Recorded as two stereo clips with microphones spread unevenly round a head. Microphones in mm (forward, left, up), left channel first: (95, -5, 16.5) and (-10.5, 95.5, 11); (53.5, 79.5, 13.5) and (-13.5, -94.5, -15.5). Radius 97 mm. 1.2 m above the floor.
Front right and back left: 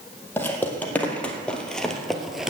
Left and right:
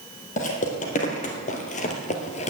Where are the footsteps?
30° left, 2.5 m; by 2.5 s 50° left, 1.6 m.